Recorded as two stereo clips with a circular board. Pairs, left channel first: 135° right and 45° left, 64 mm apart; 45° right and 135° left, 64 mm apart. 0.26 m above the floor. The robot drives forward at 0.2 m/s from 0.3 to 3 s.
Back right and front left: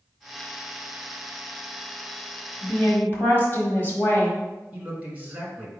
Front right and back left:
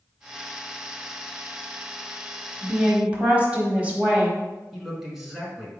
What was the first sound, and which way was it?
A woman speaking, 170° right.